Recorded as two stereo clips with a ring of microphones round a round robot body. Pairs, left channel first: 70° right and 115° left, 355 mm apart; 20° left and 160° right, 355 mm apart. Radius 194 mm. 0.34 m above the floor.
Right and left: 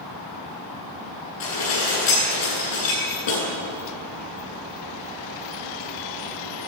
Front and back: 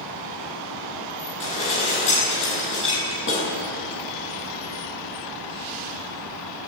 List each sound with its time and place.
1.4 s dishes clattering: 35° right, 9.5 m